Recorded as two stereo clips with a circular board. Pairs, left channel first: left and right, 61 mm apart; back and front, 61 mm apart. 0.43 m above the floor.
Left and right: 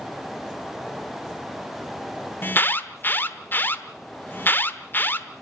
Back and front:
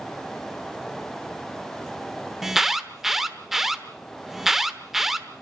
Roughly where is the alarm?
Left.